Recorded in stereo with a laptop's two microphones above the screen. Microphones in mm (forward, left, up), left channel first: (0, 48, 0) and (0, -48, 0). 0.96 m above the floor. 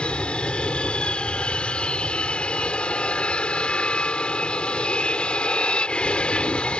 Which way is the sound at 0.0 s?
10° left (ahead or behind).